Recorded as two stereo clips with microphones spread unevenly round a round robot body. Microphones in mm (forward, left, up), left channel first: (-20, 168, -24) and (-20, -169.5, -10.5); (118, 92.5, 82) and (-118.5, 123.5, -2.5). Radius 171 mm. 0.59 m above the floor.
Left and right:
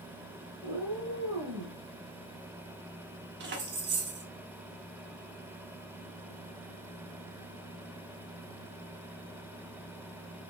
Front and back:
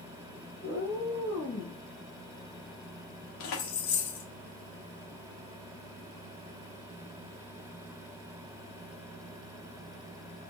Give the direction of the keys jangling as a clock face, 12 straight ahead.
1 o'clock.